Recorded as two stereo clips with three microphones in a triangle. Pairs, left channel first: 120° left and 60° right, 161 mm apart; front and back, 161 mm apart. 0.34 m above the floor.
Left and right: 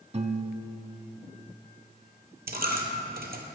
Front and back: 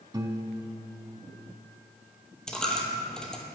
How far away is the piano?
About 0.5 m.